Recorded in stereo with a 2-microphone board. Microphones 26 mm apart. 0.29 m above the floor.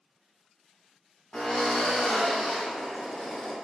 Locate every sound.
1.3 s a drill: 20° left (ahead or behind), 1.1 m